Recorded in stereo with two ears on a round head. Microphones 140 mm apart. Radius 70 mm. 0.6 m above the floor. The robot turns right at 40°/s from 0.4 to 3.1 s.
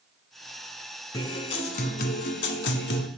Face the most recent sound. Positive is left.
turn(degrees=105)